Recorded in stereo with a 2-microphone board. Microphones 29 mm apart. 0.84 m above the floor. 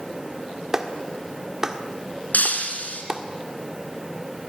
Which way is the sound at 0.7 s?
20° right (ahead or behind).